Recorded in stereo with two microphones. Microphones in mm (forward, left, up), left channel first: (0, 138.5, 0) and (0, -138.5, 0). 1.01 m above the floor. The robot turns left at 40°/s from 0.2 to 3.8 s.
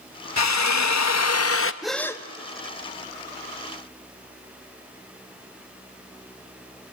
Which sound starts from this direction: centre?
A gasp, at 1.8 s.